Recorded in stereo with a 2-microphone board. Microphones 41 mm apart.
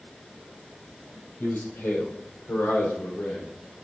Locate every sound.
1.4 s a man speaking: 70° left (ahead or behind), 3.5 m